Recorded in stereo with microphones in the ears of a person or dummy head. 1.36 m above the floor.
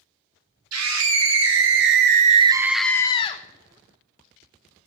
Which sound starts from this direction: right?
A scream, at 0.7 s.